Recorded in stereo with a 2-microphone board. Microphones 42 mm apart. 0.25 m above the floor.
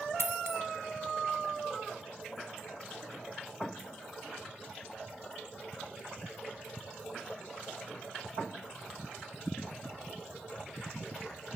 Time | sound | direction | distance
0.2 | a dropped coin | 65° right (ahead or behind) | 0.7 m